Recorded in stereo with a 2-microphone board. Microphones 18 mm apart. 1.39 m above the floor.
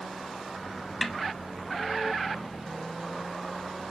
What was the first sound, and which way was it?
A snare drum, centre (ahead or behind).